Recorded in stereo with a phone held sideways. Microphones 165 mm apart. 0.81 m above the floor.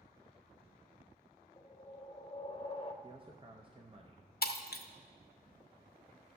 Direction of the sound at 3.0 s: 30° right (ahead or behind).